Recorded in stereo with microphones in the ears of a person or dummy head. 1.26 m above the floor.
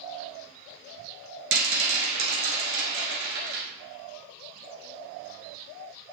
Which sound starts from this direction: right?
A rattle, at 1.5 s.